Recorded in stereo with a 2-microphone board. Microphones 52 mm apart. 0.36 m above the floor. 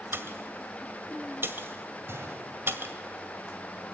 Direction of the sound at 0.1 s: 50° right (ahead or behind).